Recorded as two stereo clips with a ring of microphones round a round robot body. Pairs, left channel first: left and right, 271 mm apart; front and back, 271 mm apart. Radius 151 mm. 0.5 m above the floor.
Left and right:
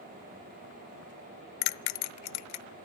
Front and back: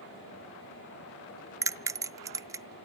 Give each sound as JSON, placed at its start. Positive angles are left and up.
{"t": 1.6, "sound": "a bell", "azimuth_deg": 100, "distance_m": 0.5}